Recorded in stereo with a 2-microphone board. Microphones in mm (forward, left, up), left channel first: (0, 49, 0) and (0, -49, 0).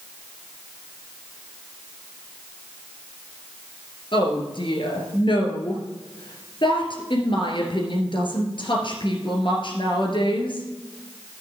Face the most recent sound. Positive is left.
turn(degrees=60)  # may be behind; listen again after turning